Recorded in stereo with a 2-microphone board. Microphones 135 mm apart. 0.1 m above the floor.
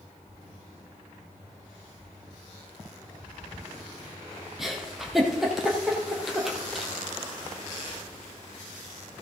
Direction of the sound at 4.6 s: Centre (ahead or behind).